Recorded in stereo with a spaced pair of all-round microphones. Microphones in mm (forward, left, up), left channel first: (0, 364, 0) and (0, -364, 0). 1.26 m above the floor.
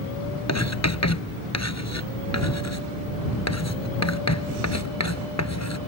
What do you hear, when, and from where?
0.5 s writing: 20° left (ahead or behind)